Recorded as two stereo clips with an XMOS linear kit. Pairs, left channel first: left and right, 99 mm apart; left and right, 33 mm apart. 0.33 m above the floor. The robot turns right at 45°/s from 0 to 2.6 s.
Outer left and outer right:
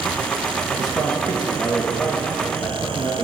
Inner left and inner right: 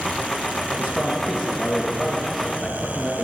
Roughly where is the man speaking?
Ahead right.